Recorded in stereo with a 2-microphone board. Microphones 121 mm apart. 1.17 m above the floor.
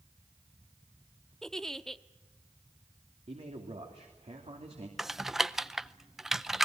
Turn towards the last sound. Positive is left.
turn(degrees=-5)  # may be behind; listen again after turning